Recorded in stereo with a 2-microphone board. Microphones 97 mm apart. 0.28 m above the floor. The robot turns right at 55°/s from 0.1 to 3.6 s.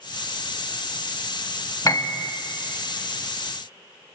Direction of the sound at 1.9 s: 40° left (ahead or behind).